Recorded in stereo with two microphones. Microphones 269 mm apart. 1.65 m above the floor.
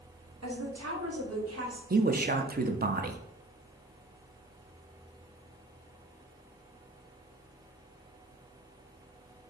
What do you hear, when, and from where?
0.4 s a woman speaking: 80° right, 1.1 m; by 1.8 s 65° right (ahead or behind), 1.5 m
1.9 s a man speaking: 35° right (ahead or behind), 0.5 m